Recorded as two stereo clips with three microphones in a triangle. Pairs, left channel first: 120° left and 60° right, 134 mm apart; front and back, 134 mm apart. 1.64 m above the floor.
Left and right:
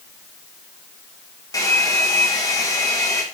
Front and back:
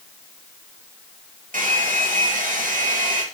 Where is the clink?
I don't hear a clink.